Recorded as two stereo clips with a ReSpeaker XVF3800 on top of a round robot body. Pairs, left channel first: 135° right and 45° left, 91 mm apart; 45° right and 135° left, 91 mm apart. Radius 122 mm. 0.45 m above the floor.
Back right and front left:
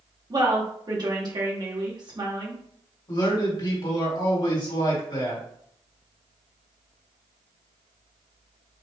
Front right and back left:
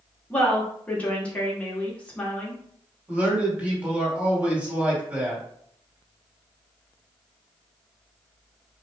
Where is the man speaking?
155° right, 2.5 m.